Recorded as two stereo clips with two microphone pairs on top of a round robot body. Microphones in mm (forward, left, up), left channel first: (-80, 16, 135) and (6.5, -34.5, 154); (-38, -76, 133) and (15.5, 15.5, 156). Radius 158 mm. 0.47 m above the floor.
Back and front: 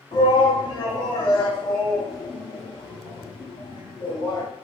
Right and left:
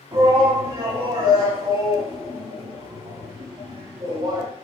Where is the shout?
115° left, 4.5 m.